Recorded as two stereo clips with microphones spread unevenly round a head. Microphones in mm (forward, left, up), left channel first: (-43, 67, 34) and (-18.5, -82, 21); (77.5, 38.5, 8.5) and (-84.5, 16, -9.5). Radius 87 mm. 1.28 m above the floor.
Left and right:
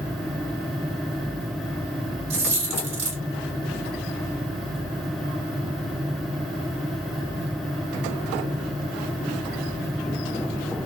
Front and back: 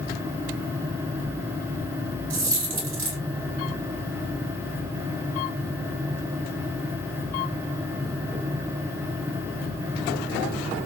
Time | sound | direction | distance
2.3 | a dropped coin | 125° right | 1.8 m